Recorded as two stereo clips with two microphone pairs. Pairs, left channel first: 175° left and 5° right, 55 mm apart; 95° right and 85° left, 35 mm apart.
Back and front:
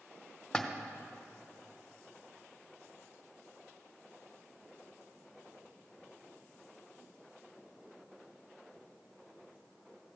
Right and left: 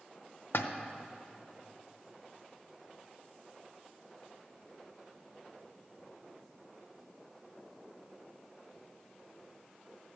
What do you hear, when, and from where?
0.5 s a splash: 110° right, 0.7 m